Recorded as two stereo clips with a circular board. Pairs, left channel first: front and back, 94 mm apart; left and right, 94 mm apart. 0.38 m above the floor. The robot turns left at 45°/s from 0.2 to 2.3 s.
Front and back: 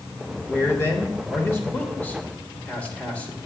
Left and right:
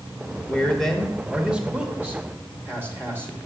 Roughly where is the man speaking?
Ahead left.